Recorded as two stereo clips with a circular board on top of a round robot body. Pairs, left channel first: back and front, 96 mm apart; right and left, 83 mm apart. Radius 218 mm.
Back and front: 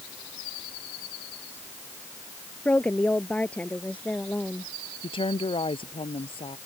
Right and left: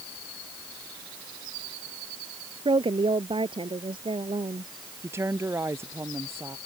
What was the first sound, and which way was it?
A woman speaking, 105° left.